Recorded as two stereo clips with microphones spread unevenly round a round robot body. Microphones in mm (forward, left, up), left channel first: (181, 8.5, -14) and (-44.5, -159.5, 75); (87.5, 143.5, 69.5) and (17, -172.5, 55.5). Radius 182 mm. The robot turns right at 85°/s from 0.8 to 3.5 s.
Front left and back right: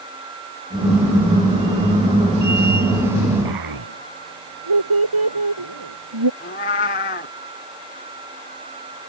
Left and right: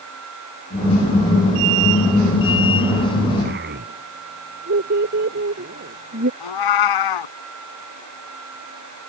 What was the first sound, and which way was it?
A child speaking, 170° right.